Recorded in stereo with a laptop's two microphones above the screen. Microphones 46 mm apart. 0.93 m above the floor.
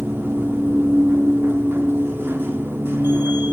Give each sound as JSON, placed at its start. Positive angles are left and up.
{"t": 0.0, "sound": "a machine running", "side_deg": -55, "distance_m": 0.9}